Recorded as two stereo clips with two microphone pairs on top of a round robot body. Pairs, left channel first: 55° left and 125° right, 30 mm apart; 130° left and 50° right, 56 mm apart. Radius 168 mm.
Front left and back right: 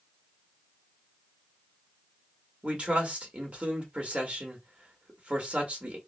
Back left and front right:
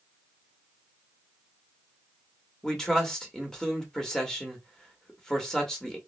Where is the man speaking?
165° right, 1.7 m.